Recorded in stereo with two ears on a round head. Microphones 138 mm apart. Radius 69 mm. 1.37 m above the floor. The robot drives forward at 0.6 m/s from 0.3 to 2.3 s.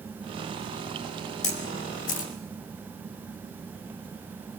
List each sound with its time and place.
1.4 s a camera shutter: 50° left (ahead or behind), 2.5 m; by 2.3 s 55° left (ahead or behind), 2.5 m